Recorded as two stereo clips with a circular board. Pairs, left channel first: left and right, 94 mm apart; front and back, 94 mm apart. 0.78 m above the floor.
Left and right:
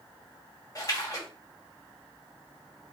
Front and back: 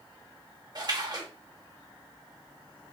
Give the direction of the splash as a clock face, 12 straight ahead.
7 o'clock.